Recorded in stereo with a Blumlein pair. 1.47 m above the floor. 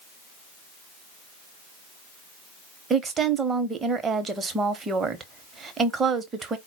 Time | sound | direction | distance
2.9 | a woman speaking | 20° right | 0.8 m